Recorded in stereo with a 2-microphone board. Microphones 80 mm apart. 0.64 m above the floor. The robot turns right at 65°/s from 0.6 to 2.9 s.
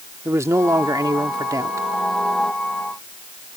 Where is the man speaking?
130° right; by 1.9 s 45° right.